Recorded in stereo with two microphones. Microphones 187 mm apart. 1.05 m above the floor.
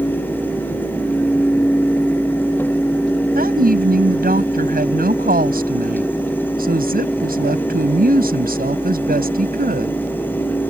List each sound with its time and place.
3.4 s a woman speaking: 55° right (ahead or behind)